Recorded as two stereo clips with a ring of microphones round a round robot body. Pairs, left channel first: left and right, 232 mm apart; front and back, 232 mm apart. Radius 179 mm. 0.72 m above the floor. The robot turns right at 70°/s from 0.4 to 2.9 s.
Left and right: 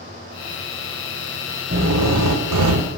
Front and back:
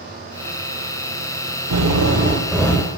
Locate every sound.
1.7 s a drill: 155° right, 0.8 m; by 2.9 s 70° right, 0.8 m